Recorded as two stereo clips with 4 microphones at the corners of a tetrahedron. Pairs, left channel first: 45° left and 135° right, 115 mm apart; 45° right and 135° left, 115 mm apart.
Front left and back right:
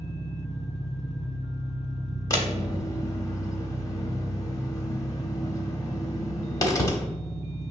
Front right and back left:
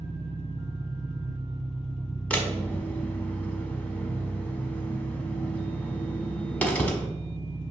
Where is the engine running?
20° left, 1.7 m.